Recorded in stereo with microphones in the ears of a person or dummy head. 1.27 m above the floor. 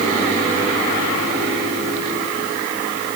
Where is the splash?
No splash in this recording.